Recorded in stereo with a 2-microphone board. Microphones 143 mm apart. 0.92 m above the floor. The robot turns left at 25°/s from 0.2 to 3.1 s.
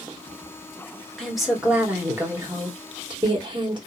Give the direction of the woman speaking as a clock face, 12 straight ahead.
12 o'clock.